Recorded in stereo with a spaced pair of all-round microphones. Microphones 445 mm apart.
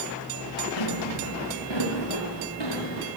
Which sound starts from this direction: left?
Footsteps, at 0.8 s.